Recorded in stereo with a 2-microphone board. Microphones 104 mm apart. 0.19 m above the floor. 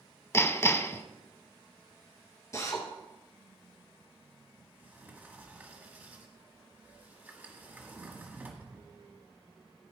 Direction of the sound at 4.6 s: 15° right (ahead or behind).